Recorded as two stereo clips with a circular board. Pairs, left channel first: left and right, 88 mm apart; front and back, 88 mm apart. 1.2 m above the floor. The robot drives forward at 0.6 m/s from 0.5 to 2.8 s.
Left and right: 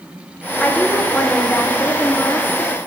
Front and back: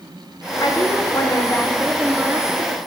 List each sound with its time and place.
0.6 s a woman speaking: 15° left, 1.0 m; by 2.8 s 155° left, 0.8 m